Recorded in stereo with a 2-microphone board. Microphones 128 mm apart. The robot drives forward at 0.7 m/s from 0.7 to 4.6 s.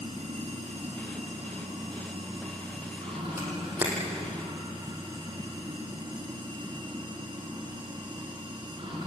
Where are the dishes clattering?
I don't hear dishes clattering.